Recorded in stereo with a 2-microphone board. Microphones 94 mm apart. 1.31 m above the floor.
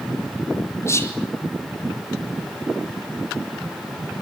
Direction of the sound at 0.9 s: 30° left (ahead or behind).